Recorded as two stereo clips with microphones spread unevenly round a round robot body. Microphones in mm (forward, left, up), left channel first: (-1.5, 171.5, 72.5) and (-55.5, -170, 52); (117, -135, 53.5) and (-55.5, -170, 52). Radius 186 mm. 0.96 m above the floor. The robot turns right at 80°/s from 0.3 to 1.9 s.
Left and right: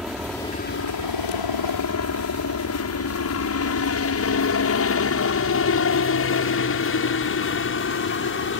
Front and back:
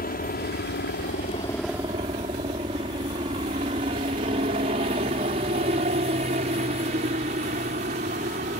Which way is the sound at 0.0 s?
10° right.